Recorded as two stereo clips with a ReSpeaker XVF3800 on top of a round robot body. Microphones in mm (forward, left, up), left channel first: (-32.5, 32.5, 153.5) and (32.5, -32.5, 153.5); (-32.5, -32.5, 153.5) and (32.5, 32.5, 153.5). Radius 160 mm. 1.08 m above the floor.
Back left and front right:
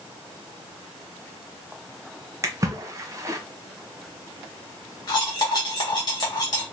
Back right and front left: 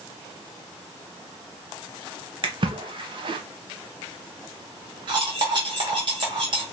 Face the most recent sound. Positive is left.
turn(degrees=85)